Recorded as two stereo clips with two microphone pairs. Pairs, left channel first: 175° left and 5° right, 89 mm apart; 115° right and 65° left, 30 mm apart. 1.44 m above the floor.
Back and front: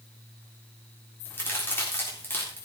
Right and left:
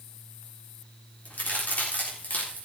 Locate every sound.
1.2 s a crack: 120° right, 3.5 m